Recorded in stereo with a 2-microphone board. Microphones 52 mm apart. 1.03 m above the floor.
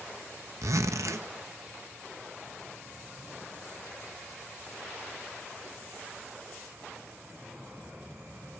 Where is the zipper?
75° right (ahead or behind), 0.7 m.